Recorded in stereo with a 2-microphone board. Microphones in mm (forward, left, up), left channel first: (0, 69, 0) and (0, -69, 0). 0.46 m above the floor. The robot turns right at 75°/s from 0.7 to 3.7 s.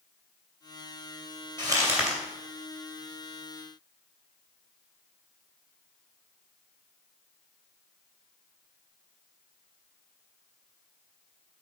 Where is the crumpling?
40° right, 2.5 m; by 2.2 s 5° left, 2.5 m.